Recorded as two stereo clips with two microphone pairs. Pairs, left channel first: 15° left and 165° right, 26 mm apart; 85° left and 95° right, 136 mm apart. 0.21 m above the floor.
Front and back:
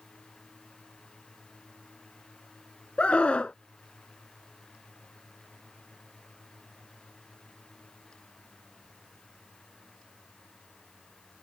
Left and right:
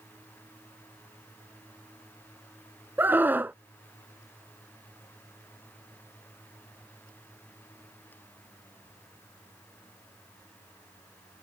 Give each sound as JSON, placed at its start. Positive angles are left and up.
{"t": 3.0, "sound": "a scream", "azimuth_deg": -20}